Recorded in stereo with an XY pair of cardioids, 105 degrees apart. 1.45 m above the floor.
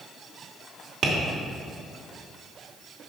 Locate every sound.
1.0 s tapping: 50° right, 2.5 m